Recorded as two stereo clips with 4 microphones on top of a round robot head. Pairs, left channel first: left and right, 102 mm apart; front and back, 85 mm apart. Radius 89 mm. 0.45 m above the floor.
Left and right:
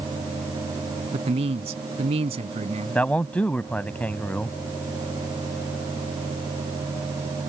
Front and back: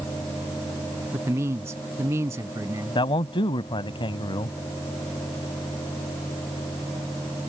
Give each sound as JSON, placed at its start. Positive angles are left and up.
{"t": 1.1, "sound": "a man speaking", "azimuth_deg": -115}
{"t": 3.0, "sound": "a man speaking", "azimuth_deg": 15}